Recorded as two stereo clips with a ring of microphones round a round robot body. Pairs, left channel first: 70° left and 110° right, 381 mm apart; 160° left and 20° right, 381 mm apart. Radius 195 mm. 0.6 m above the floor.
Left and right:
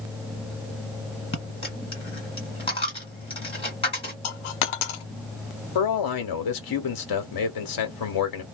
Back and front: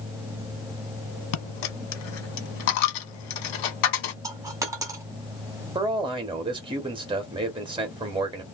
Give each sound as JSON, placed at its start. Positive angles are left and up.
{"t": 1.3, "sound": "a dropped coin", "azimuth_deg": 145, "distance_m": 1.3}
{"t": 4.2, "sound": "a dropped coin", "azimuth_deg": 60, "distance_m": 0.7}
{"t": 5.8, "sound": "a man speaking", "azimuth_deg": 55, "distance_m": 0.9}